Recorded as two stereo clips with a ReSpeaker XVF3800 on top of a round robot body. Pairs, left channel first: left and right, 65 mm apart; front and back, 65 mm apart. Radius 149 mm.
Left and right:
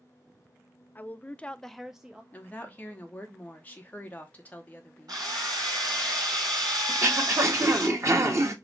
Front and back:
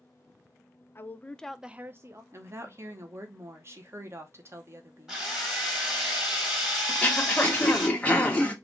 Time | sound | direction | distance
0.9 | a woman speaking | 35° left | 0.7 m
2.3 | a woman speaking | 145° left | 1.2 m
5.1 | a drill | 100° right | 2 m
6.9 | throat clearing | 65° right | 1.4 m